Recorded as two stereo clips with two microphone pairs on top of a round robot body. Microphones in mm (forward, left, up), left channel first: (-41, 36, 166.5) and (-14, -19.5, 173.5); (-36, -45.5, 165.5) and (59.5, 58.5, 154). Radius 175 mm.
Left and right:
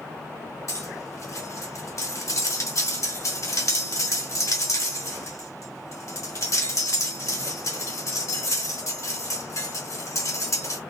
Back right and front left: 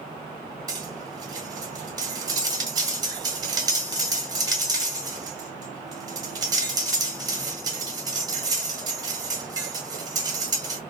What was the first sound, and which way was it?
Cutlery clinking, 105° left.